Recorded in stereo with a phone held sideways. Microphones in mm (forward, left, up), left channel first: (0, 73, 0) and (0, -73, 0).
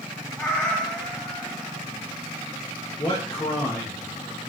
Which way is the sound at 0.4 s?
Centre (ahead or behind).